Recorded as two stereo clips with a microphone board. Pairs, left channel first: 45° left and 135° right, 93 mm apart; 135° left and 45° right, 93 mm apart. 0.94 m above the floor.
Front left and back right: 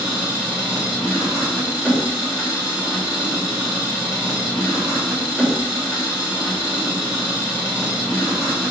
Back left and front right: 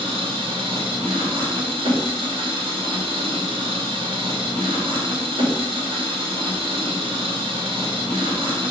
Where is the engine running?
55° right, 2.5 m.